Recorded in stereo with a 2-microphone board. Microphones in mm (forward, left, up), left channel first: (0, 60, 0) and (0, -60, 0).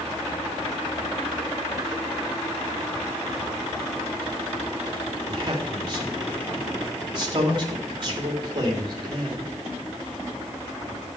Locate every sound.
5.3 s a man speaking: 40° right (ahead or behind), 2.5 m